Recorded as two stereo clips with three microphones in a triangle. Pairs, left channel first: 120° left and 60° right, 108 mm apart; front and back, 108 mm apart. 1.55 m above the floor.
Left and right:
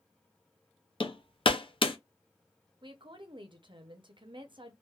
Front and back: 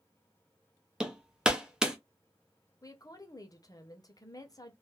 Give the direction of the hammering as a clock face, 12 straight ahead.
9 o'clock.